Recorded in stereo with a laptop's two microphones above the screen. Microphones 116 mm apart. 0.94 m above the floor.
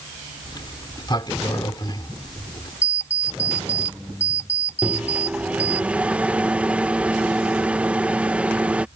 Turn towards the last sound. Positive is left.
turn(degrees=-10)  # may be behind; listen again after turning